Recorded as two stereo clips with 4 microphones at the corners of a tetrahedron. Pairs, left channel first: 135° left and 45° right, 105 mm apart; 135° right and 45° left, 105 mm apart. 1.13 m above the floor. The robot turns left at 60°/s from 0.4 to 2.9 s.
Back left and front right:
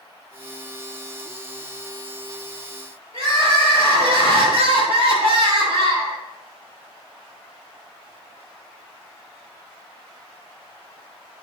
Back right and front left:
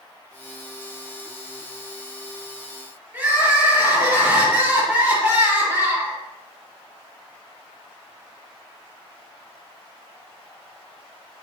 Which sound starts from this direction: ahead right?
Crying, at 3.1 s.